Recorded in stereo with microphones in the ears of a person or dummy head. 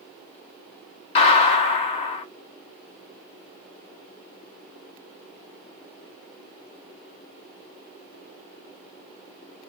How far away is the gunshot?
About 1.1 m.